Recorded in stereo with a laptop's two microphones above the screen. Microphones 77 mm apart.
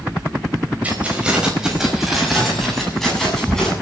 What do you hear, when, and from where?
0.8 s keys jangling: 15° right (ahead or behind), 4.5 m; by 3.7 s 10° left (ahead or behind), 8 m